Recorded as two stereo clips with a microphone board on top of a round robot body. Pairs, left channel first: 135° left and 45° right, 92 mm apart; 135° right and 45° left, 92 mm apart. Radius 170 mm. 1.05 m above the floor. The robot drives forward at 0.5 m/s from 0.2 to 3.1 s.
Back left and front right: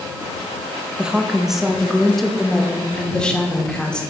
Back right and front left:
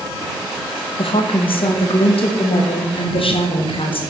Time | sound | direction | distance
1.0 | a woman speaking | 125° right | 2.0 m